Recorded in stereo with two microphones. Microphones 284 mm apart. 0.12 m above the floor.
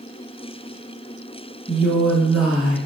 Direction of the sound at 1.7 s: Centre (ahead or behind).